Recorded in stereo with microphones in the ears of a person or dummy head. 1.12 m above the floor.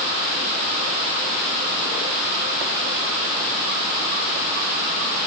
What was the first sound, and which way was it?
Only background noise.